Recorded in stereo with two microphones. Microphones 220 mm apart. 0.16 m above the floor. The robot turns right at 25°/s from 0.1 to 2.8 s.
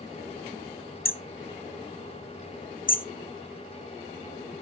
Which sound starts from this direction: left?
Hammering, at 1.1 s.